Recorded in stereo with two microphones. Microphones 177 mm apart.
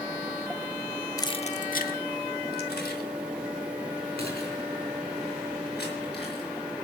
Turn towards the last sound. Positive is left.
turn(degrees=70)  # may be behind; listen again after turning